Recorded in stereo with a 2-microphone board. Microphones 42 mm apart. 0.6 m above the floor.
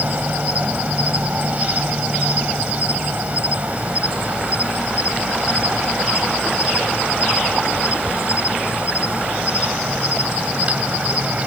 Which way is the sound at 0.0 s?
35° right (ahead or behind).